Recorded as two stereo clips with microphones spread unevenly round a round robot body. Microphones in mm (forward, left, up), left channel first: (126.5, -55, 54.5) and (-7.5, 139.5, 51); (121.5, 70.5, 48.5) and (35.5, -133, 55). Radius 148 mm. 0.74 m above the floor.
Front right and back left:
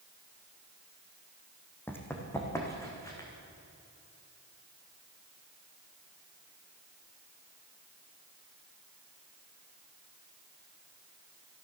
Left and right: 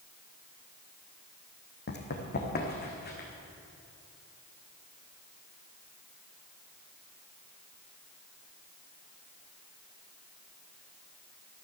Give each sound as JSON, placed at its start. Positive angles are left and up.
{"t": 1.9, "sound": "running footsteps", "azimuth_deg": 25, "distance_m": 2.5}